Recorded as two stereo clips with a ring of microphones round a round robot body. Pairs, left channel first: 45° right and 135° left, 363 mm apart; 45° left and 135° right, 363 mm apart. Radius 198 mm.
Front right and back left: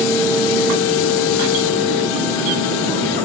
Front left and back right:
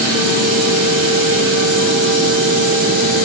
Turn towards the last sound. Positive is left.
No sound to turn to.